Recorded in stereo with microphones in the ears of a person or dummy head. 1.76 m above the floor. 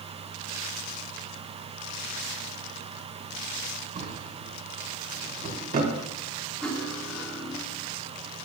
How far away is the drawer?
About 2.5 m.